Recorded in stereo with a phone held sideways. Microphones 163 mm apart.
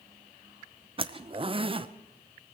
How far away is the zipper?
About 0.5 m.